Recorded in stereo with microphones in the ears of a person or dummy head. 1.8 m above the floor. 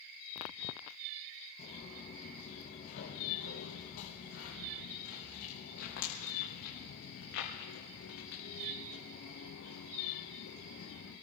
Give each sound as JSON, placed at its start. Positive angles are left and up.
{"t": 1.6, "sound": "footsteps", "side_deg": 45, "distance_m": 5.0}